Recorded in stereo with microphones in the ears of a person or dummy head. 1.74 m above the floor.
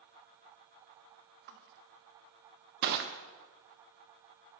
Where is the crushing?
60° right (ahead or behind), 0.8 m.